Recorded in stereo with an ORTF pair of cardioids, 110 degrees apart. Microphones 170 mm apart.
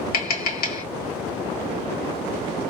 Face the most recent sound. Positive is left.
turn(degrees=65)